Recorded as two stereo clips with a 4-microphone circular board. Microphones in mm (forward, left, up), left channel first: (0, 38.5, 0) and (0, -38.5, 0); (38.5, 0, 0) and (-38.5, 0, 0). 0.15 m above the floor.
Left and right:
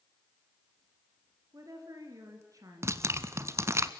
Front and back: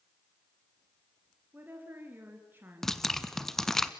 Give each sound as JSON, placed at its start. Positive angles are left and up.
{"t": 1.5, "sound": "a woman speaking", "azimuth_deg": -120, "distance_m": 2.5}
{"t": 2.8, "sound": "dripping", "azimuth_deg": -80, "distance_m": 0.8}